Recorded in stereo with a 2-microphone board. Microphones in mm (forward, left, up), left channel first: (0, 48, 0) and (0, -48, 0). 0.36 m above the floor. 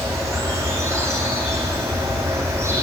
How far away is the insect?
About 4.5 m.